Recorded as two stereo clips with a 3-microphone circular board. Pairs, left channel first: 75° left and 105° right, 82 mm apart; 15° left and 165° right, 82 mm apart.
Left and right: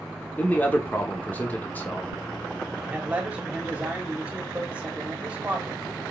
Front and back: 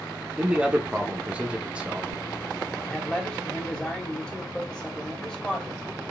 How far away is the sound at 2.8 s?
About 1.4 m.